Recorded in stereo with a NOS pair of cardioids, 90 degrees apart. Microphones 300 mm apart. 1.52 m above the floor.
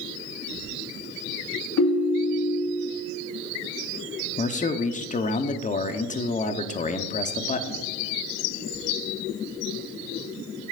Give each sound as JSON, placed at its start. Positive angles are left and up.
{"t": 1.8, "sound": "a ringtone", "azimuth_deg": 65, "distance_m": 1.8}
{"t": 4.4, "sound": "a man speaking", "azimuth_deg": 25, "distance_m": 0.9}